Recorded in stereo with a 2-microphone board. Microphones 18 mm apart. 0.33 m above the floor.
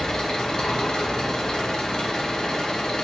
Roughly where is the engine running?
Left.